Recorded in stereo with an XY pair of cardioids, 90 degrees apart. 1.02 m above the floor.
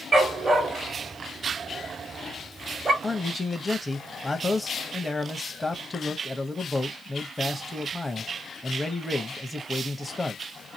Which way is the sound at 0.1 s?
40° right.